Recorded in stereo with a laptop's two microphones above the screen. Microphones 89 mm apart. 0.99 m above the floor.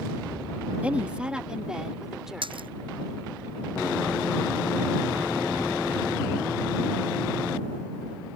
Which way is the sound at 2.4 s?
70° right (ahead or behind).